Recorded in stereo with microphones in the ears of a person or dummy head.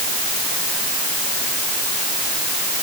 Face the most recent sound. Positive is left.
No sound to turn to.